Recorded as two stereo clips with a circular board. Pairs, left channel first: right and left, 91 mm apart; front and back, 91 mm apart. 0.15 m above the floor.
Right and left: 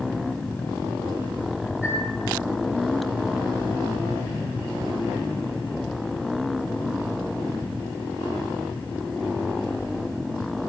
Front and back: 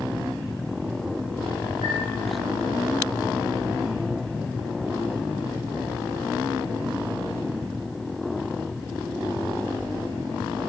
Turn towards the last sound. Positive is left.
turn(degrees=170)